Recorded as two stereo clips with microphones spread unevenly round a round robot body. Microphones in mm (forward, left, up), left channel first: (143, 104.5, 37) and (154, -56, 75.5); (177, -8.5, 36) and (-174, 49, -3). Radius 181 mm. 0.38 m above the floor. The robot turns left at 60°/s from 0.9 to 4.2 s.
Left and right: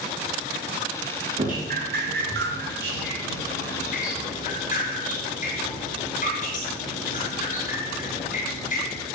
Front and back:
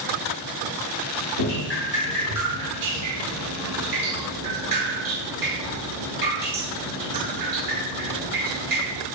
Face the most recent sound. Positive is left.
turn(degrees=145)